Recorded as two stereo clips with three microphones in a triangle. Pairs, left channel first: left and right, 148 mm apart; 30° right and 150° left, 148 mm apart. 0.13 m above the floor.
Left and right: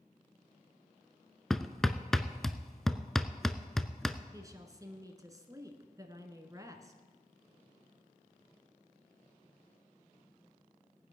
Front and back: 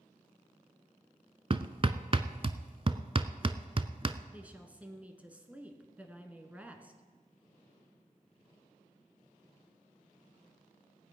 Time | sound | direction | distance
1.5 | hammering | 175° left | 0.6 m
4.3 | a woman speaking | 135° right | 1.5 m